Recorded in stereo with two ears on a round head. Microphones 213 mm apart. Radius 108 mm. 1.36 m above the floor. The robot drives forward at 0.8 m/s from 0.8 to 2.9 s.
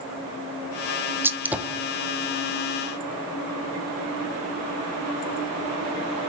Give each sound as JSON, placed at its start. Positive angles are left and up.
{"t": 1.2, "sound": "a gunshot", "side_deg": -10, "distance_m": 0.6}